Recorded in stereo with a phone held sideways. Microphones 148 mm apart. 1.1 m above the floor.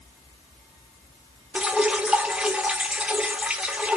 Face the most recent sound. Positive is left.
turn(degrees=-10)  # may be behind; listen again after turning